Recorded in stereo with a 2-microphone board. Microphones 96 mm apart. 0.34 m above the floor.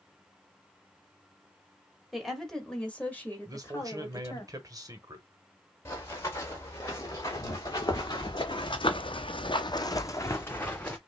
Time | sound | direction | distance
2.1 | a woman speaking | centre (ahead or behind) | 1.6 m
3.5 | a man speaking | 40° right (ahead or behind) | 1.2 m
5.8 | running footsteps | 30° left (ahead or behind) | 2.5 m